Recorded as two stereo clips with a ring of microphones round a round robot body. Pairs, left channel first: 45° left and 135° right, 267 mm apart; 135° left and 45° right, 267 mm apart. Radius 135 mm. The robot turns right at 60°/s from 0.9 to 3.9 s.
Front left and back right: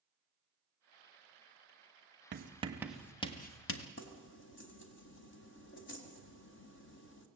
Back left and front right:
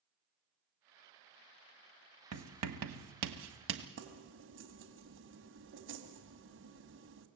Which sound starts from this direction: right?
Writing, at 2.3 s.